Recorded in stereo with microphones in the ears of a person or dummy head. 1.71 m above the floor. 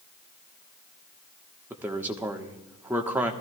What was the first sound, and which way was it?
A man speaking, 15° right (ahead or behind).